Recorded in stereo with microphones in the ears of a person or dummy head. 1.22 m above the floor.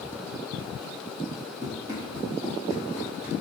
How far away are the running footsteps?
About 1.7 m.